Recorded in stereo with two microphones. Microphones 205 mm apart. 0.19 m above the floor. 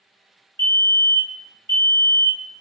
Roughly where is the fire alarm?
Right.